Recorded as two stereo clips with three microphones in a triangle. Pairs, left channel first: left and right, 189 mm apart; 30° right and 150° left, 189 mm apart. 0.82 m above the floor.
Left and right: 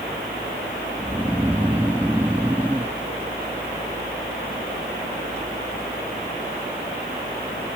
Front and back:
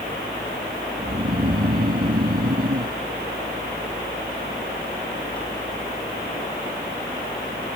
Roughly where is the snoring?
Behind.